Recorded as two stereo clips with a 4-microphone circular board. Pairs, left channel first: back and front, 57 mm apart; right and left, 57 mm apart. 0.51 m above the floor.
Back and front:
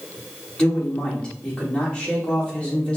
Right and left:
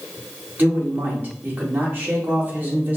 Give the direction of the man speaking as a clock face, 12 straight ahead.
8 o'clock.